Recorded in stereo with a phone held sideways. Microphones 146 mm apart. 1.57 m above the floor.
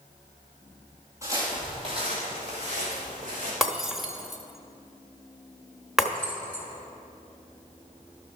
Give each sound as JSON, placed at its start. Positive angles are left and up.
{"t": 1.2, "sound": "footsteps", "side_deg": -20, "distance_m": 2.5}
{"t": 3.6, "sound": "breaking glass", "side_deg": 0, "distance_m": 1.0}
{"t": 6.2, "sound": "keys jangling", "side_deg": 15, "distance_m": 1.9}